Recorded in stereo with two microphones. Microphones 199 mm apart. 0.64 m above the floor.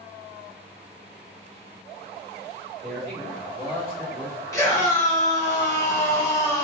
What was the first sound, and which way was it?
A man speaking, 45° right (ahead or behind).